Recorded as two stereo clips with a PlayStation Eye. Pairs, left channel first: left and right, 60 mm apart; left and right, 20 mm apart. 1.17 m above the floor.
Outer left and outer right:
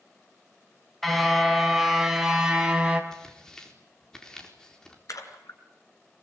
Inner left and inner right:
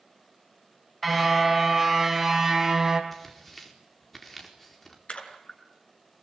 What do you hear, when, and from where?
1.0 s a car horn: 5° left (ahead or behind), 3.5 m; by 3.0 s 15° right (ahead or behind), 3.5 m
3.1 s tearing paper: 10° left (ahead or behind), 4 m
5.1 s a splash: 70° left (ahead or behind), 4.5 m